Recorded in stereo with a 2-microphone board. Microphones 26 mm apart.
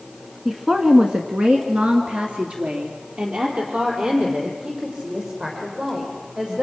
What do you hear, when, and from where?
0.5 s a woman speaking: 20° right (ahead or behind), 1.8 m; by 6.6 s 40° right (ahead or behind), 9 m